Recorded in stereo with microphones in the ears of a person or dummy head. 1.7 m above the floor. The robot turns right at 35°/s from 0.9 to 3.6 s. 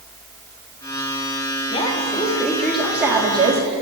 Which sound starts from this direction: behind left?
A woman speaking, at 1.7 s.